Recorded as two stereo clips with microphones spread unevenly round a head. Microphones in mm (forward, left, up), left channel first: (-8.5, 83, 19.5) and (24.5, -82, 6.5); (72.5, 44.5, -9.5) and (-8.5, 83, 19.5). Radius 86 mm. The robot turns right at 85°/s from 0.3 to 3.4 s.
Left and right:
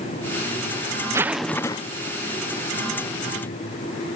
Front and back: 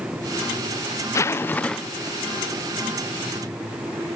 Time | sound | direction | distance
1.1 | a zipper | 15° right | 0.6 m